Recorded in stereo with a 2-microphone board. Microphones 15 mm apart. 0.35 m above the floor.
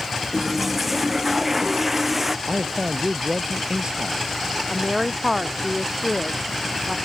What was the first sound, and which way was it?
A toilet flushing, 15° right (ahead or behind).